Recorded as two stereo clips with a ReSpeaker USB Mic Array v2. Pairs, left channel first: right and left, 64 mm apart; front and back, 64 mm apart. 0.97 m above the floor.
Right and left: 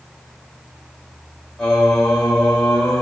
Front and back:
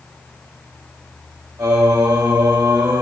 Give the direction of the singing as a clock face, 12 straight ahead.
6 o'clock.